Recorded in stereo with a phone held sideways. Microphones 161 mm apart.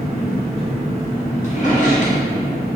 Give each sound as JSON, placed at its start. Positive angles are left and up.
{"t": 0.0, "sound": "an engine running", "side_deg": -40, "distance_m": 1.0}
{"t": 1.4, "sound": "a drawer", "side_deg": 50, "distance_m": 0.6}